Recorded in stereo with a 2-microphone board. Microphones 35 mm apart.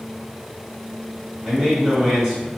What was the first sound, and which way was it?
A man speaking, 5° right (ahead or behind).